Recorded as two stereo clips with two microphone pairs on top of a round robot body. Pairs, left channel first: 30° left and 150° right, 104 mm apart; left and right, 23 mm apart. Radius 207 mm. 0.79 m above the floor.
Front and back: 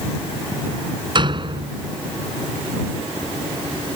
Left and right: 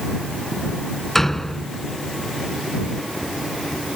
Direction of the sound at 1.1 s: 165° left.